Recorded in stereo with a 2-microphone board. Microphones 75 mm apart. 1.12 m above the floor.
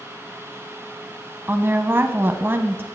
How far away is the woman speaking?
About 0.7 m.